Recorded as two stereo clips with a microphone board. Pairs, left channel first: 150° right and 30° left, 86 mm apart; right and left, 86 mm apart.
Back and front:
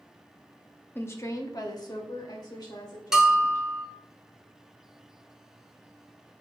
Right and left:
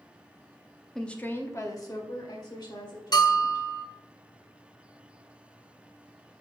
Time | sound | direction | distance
0.9 | a woman speaking | 175° right | 0.7 m
3.1 | a bell | 50° right | 0.8 m